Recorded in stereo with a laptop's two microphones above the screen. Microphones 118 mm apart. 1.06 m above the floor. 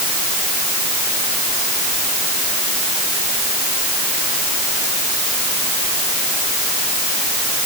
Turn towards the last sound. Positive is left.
No sound to turn to.